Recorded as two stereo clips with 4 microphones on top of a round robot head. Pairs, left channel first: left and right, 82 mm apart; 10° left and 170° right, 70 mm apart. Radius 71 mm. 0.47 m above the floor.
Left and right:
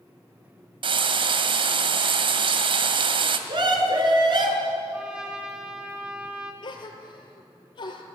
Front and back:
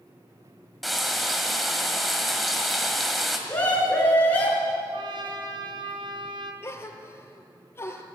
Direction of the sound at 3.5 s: 65° right.